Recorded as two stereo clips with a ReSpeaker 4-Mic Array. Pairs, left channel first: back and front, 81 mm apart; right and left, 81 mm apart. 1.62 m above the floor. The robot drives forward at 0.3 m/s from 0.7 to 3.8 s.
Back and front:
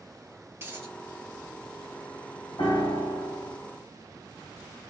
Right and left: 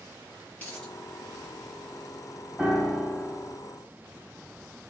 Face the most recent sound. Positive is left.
turn(degrees=180)